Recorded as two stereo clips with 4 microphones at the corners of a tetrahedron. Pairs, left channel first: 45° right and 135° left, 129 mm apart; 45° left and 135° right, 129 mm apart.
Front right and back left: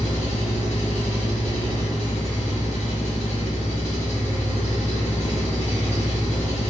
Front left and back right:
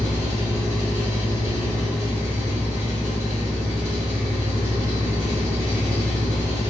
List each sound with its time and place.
0.0 s an engine running: 65° right, 1.4 m